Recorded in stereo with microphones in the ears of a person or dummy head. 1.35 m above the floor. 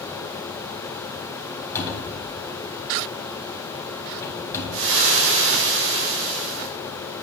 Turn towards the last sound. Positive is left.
turn(degrees=-70)  # may be behind; listen again after turning